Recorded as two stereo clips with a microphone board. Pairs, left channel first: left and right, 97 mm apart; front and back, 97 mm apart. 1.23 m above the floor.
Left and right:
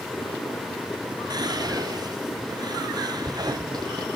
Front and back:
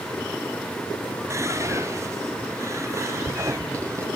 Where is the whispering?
125° right, 1.0 m.